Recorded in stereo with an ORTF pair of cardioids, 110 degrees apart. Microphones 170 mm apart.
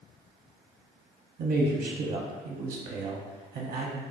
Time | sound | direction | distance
1.4 | a man speaking | 60° right | 0.9 m